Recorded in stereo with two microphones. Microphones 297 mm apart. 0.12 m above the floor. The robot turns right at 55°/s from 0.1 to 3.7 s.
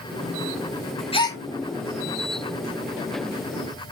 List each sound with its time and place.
1.1 s a gasp: 20° left (ahead or behind), 0.7 m; by 1.4 s 5° left (ahead or behind), 0.7 m